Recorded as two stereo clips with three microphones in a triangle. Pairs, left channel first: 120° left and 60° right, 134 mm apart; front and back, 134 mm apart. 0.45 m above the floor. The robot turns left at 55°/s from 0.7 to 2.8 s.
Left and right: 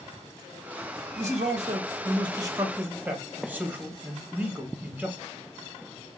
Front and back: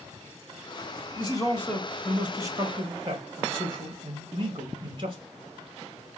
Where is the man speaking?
45° right, 1.7 m; by 5.2 s 135° right, 1.7 m.